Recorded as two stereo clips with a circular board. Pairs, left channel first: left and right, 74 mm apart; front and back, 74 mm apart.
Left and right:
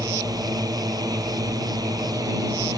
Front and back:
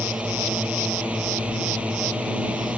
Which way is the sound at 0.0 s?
110° right.